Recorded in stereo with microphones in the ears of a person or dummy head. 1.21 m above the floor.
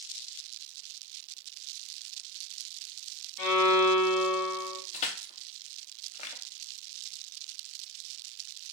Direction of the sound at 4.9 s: 35° left (ahead or behind).